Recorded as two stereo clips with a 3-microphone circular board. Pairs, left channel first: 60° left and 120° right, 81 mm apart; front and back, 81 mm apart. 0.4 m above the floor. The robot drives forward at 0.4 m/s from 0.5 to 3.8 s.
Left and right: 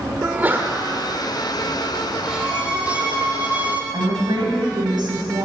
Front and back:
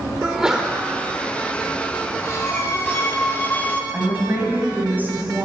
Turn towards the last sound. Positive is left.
turn(degrees=-115)